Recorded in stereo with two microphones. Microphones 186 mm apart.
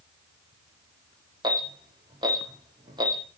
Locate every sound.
1.4 s an alarm: 25° right (ahead or behind), 7 m